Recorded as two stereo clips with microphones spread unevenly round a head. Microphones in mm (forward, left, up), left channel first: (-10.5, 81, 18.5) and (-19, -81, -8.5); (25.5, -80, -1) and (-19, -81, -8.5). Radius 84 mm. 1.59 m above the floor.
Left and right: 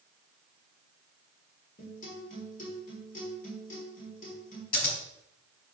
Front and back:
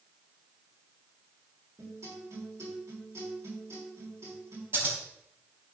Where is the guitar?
130° left, 5.5 m.